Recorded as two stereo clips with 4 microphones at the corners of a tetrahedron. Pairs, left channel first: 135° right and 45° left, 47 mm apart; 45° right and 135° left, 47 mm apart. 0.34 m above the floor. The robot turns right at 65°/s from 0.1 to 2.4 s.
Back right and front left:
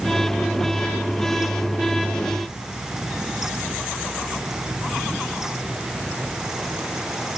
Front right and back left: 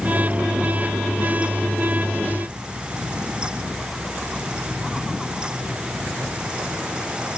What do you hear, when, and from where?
Only background noise.